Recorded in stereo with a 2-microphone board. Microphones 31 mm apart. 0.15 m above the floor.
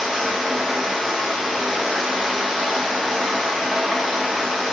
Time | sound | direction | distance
0.0 | running water | 10° right (ahead or behind) | 1.9 m